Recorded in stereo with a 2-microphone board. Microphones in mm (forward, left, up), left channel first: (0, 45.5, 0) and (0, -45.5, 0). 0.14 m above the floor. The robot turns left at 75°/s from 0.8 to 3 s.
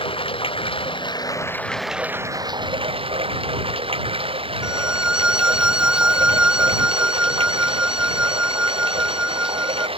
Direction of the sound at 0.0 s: 80° left.